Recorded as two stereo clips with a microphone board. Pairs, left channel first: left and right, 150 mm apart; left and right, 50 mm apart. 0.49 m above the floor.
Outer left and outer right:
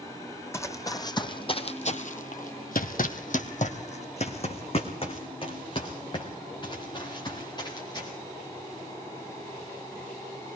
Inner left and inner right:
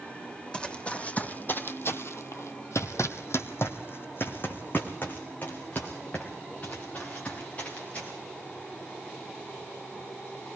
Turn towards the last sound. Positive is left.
turn(degrees=25)  # may be behind; listen again after turning